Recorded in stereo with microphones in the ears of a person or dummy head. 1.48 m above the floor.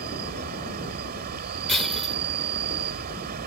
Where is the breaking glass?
Centre (ahead or behind).